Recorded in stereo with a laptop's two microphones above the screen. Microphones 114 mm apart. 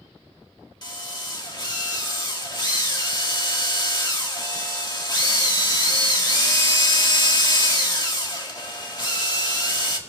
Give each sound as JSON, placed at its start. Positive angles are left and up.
{"t": 0.8, "sound": "a drill", "side_deg": 40, "distance_m": 1.8}